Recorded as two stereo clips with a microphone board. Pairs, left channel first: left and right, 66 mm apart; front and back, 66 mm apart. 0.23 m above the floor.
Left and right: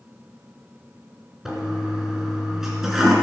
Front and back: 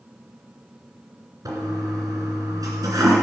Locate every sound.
1.4 s a toilet flushing: 175° right, 2.5 m